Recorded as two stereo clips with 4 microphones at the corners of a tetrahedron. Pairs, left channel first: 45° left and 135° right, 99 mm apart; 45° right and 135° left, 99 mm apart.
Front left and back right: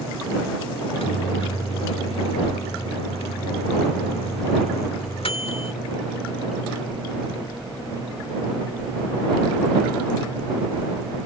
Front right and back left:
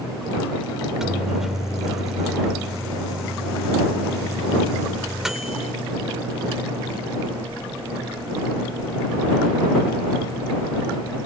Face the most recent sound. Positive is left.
turn(degrees=50)